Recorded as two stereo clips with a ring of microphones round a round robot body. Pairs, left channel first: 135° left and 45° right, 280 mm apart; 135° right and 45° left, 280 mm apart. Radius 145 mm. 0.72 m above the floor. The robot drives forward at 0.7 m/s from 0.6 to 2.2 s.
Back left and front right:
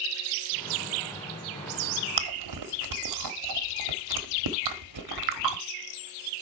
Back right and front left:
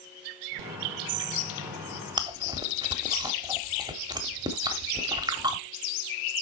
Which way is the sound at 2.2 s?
30° right.